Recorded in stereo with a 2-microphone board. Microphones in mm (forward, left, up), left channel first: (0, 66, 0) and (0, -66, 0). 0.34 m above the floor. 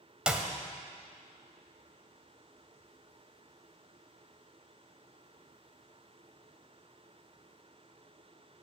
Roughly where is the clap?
Centre.